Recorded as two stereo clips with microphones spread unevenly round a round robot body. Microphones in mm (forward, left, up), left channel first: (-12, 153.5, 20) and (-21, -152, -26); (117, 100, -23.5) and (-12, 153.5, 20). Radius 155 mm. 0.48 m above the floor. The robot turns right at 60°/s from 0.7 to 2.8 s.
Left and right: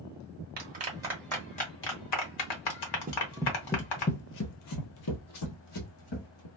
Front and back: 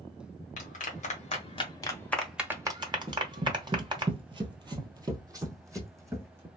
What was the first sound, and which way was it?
A clap, 35° right.